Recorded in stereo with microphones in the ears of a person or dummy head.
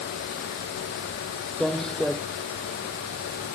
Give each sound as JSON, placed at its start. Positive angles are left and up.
{"t": 1.6, "sound": "footsteps", "side_deg": 0}